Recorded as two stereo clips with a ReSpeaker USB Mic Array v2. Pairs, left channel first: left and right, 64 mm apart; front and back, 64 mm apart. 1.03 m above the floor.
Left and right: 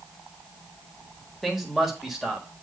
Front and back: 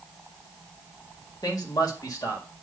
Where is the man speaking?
Straight ahead, 1.6 m.